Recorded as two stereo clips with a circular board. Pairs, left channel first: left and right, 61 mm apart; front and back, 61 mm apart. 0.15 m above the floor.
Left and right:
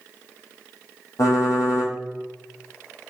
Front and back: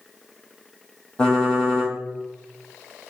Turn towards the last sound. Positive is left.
turn(degrees=75)